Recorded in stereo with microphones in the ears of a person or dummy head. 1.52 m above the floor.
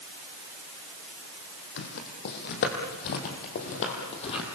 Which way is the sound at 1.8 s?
55° left (ahead or behind).